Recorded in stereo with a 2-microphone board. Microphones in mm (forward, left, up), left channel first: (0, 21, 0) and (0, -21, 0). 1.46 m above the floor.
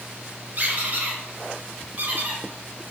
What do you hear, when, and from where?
0.6 s a squeak: 40° right (ahead or behind), 0.7 m